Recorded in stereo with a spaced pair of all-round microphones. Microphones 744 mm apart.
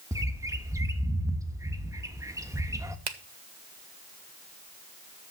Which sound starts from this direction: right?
A finger snap, at 3.1 s.